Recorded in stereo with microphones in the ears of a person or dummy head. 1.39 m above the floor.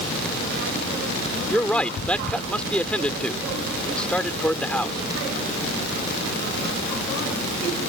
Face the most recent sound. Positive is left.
turn(degrees=0)  # may be behind; listen again after turning